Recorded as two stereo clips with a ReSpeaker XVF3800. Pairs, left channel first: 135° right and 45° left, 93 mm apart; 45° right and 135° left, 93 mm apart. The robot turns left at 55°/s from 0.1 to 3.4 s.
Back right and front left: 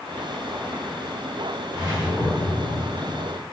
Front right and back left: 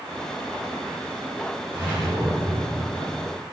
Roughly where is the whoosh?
Left.